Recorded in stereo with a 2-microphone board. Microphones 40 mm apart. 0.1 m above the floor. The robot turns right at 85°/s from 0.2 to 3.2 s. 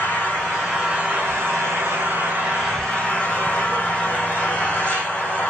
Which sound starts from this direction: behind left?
An engine running, at 0.0 s.